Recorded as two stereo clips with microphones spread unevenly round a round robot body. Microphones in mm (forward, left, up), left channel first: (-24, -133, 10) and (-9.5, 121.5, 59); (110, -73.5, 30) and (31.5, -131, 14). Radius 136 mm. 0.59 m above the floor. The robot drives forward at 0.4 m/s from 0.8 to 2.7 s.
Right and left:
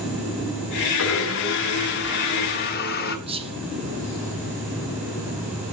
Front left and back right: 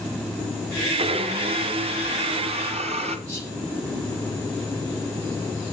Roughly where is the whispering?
Behind.